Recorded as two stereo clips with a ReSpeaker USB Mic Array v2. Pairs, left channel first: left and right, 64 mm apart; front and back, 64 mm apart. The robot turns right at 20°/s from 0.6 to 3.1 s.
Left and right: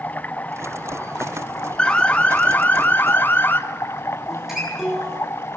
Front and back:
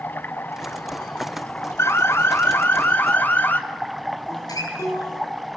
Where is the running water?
40° left, 0.9 m; by 5.6 s 90° left, 0.9 m.